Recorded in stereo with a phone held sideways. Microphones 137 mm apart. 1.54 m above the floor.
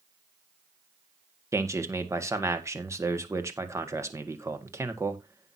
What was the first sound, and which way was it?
A man speaking, 20° right (ahead or behind).